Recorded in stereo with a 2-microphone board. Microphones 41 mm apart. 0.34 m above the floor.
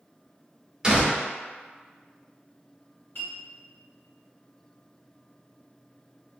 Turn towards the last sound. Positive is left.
turn(degrees=70)  # may be behind; listen again after turning